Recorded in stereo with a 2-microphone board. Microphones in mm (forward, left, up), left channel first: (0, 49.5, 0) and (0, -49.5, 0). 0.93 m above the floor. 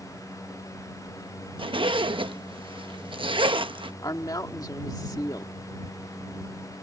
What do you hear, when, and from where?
1.6 s a zipper: 60° right (ahead or behind)
4.0 s a woman speaking: 40° left (ahead or behind)